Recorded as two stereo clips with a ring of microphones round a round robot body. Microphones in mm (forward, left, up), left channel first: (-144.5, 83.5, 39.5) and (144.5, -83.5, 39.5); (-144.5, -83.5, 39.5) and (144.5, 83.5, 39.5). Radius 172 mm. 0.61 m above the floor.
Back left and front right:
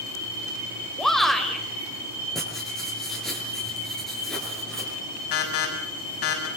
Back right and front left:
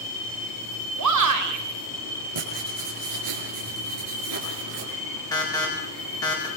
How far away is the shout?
About 3.5 m.